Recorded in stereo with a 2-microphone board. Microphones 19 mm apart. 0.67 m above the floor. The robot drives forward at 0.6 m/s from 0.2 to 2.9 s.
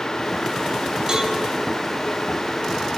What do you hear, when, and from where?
1.1 s a cowbell: 35° right (ahead or behind), 4 m